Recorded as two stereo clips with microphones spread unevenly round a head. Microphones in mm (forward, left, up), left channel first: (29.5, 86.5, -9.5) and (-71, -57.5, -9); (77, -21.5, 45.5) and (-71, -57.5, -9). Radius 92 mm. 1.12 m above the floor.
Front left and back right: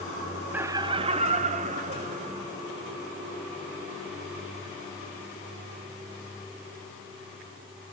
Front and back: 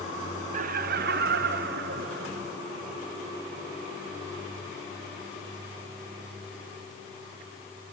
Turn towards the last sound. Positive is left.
turn(degrees=-170)